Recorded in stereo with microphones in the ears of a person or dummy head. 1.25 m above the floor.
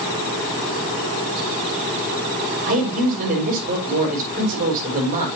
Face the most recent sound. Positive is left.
turn(degrees=-45)  # may be behind; listen again after turning